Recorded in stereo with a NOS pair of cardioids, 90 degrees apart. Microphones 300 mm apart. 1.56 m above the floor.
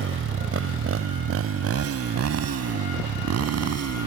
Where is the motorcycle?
45° right; by 4.1 s 60° right.